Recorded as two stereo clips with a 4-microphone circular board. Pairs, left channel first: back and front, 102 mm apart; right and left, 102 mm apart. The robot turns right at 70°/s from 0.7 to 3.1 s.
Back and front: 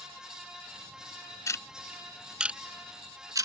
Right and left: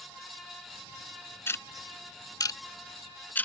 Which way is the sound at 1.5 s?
140° right.